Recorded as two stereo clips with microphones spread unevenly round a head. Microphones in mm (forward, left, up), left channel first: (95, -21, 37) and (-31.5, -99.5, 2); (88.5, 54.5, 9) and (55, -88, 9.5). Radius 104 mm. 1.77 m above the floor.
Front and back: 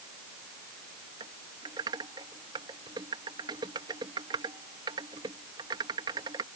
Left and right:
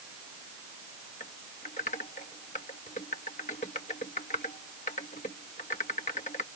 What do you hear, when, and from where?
1.2 s typing on a keyboard: 135° left